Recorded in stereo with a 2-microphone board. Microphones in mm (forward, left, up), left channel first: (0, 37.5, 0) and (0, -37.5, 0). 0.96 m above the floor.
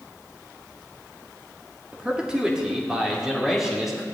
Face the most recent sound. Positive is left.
turn(degrees=-5)  # may be behind; listen again after turning